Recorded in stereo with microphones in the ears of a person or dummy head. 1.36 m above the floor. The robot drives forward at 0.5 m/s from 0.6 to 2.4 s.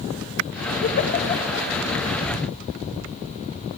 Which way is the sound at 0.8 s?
50° left (ahead or behind).